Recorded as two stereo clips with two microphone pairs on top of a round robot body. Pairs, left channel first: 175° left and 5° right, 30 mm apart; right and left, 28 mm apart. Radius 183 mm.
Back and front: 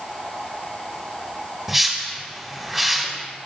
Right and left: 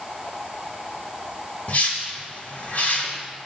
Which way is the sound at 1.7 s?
80° right.